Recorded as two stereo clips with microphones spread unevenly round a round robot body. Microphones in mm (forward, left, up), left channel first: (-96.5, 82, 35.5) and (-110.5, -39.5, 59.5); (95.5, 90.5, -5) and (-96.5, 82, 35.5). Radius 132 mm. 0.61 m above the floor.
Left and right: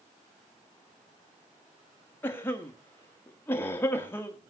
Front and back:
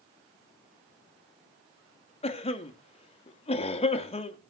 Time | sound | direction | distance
2.2 | a cough | 30° left | 1.1 m